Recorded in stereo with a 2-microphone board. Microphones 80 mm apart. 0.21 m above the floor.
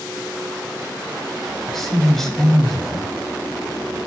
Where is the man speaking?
5° left (ahead or behind), 1.0 m.